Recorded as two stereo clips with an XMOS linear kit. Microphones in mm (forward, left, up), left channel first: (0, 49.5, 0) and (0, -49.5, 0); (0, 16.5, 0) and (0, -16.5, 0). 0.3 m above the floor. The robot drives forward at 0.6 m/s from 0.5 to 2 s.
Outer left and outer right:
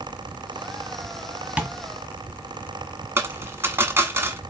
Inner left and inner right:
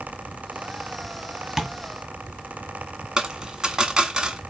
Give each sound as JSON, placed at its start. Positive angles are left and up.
{"t": 1.6, "sound": "tapping", "side_deg": -15, "distance_m": 1.5}
{"t": 3.2, "sound": "a dropped coin", "side_deg": -25, "distance_m": 1.2}